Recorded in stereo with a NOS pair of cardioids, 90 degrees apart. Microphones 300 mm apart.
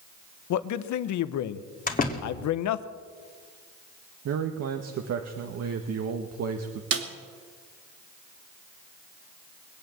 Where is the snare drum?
50° right, 2.5 m.